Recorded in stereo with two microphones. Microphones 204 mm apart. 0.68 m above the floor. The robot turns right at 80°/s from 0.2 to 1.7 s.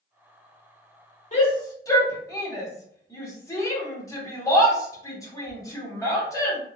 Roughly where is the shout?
Left.